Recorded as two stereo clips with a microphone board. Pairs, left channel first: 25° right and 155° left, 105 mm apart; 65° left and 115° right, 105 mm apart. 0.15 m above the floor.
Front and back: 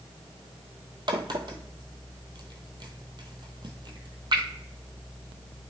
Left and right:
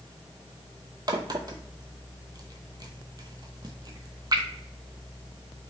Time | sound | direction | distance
1.1 | a crack | 160° right | 0.7 m